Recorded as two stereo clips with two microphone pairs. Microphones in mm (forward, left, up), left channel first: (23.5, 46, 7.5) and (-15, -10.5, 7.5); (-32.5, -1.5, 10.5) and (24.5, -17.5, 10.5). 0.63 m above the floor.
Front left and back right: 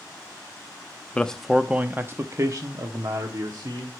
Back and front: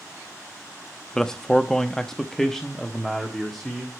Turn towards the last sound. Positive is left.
turn(degrees=-110)